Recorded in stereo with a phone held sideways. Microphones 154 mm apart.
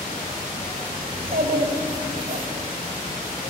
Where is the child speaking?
80° right, 3 m.